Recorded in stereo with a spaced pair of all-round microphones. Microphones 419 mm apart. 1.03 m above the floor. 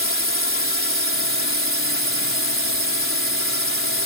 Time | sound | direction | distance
0.0 | a drone | 30° left (ahead or behind) | ?